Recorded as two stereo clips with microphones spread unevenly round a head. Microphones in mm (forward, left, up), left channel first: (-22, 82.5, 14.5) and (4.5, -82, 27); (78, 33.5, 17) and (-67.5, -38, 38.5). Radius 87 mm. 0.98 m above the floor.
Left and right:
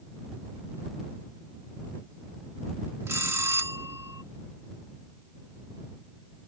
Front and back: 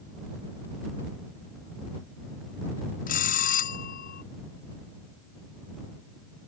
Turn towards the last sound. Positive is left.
turn(degrees=-5)